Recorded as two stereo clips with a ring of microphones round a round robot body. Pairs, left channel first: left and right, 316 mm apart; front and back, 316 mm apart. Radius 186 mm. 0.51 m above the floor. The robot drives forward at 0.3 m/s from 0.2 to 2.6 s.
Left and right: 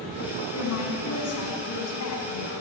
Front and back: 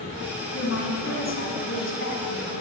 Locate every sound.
0.5 s a woman speaking: 45° left, 5.5 m; by 2.6 s 55° left, 5 m